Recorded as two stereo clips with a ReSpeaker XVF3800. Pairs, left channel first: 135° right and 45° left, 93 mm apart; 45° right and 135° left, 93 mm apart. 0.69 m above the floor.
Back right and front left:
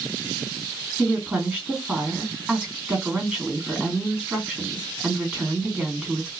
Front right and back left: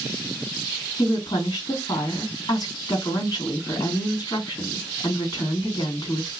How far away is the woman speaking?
About 1.7 m.